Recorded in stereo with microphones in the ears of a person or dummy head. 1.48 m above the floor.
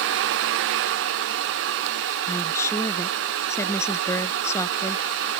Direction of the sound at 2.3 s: 15° left (ahead or behind).